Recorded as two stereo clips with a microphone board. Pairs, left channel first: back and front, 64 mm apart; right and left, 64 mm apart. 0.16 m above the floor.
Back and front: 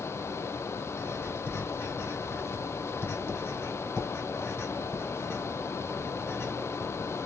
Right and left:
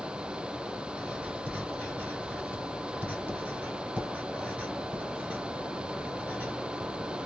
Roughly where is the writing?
Behind left.